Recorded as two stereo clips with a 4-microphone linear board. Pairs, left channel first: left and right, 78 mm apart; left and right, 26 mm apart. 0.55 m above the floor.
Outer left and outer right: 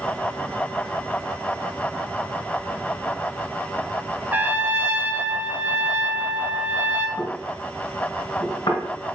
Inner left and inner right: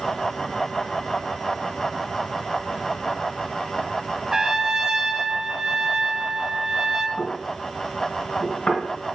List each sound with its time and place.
4.3 s a trumpet: 25° right (ahead or behind), 1.2 m
7.2 s knocking: 70° left (ahead or behind), 2.5 m